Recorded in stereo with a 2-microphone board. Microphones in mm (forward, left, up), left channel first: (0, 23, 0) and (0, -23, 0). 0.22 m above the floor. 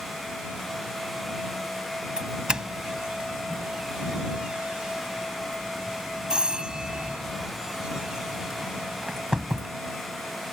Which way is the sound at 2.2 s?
20° right (ahead or behind).